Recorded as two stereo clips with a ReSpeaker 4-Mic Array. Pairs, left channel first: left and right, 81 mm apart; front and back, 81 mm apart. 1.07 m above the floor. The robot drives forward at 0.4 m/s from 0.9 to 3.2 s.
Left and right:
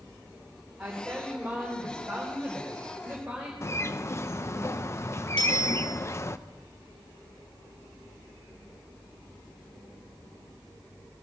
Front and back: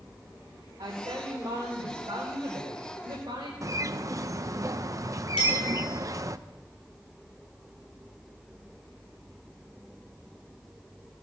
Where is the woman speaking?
165° right, 3 m; by 3.5 s 170° right, 4 m.